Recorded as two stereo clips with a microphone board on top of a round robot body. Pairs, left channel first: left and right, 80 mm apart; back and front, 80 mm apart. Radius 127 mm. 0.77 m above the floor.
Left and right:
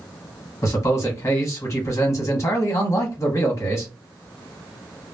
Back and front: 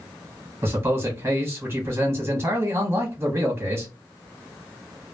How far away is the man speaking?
About 1.6 m.